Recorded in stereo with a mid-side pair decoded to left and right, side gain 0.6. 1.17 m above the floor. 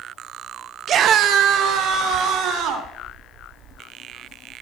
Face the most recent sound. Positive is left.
turn(degrees=-70)